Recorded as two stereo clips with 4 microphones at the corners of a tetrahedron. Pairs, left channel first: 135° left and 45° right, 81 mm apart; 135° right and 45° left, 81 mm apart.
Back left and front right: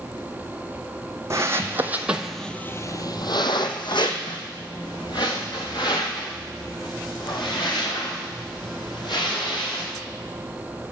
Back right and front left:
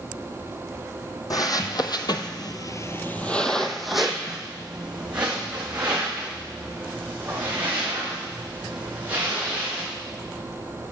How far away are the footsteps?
About 1.2 m.